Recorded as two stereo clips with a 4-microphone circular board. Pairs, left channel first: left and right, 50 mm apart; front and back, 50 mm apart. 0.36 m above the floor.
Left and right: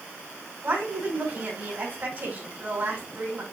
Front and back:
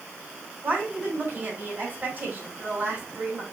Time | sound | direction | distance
0.6 | a woman speaking | 130° right | 3 m